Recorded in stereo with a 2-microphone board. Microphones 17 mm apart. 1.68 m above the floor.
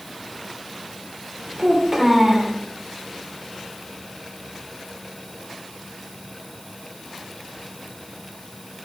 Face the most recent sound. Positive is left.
turn(degrees=-30)  # may be behind; listen again after turning